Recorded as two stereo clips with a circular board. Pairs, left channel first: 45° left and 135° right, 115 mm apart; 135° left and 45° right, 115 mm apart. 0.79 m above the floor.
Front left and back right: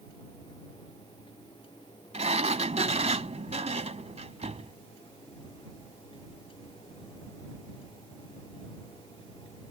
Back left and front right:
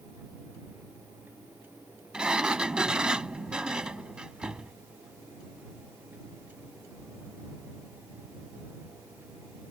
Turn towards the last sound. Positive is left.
turn(degrees=-125)